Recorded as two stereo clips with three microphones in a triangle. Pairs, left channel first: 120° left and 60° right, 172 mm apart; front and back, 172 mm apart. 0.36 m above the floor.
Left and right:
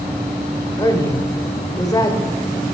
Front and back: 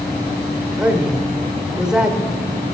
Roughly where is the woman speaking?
Left.